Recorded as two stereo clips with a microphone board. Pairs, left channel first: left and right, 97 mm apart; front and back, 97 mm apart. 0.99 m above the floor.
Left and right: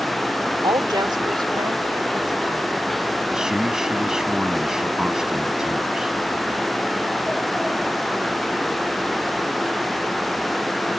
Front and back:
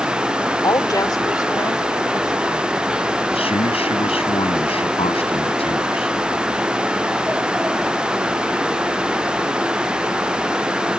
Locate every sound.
0.6 s a woman speaking: 50° right
3.3 s a man speaking: 5° right